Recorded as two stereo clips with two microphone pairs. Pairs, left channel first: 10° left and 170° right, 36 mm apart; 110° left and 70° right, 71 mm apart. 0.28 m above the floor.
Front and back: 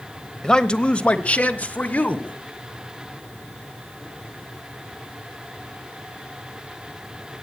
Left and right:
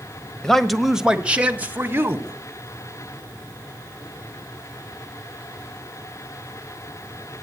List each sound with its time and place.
0.4 s a man speaking: 45° left, 1.0 m; by 2.4 s 20° right, 1.6 m